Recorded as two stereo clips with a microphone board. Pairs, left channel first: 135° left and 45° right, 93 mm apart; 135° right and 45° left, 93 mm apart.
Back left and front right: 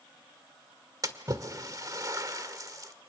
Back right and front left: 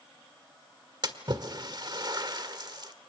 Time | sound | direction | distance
1.0 | a splash | 5° left | 1.6 m